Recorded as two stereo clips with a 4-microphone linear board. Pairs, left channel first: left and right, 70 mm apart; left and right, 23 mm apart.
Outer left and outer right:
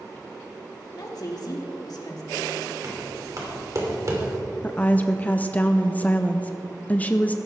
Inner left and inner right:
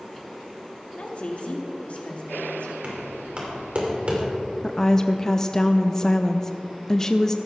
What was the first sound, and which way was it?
A woman speaking, 65° left (ahead or behind).